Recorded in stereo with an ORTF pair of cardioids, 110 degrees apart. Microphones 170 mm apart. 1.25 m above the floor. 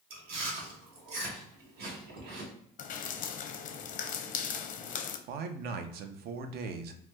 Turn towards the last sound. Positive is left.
turn(degrees=-65)